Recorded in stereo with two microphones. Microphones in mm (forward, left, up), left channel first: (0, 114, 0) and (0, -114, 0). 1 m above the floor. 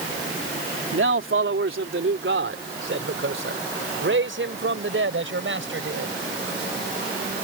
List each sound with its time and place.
0.9 s a man speaking: 60° right (ahead or behind)